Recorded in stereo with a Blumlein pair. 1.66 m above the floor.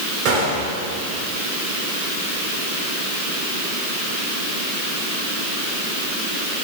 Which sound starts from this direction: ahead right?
A gunshot, at 0.2 s.